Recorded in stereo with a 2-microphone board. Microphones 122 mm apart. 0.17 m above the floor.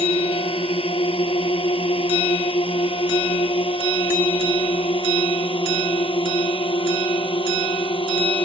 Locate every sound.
0.0 s a drone: 50° left (ahead or behind); by 8.5 s 40° left (ahead or behind)